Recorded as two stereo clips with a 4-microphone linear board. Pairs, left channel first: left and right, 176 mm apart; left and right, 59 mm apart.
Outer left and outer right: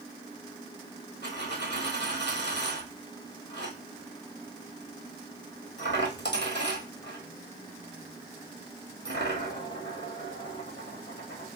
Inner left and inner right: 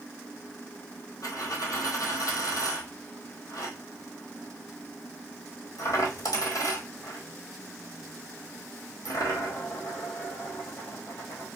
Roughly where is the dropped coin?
Left.